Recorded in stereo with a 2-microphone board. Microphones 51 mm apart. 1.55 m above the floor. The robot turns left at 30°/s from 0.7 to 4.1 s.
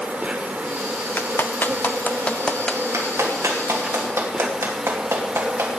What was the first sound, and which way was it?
An insect, 55° right.